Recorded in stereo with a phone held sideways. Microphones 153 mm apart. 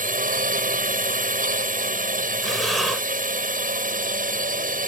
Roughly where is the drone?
Right.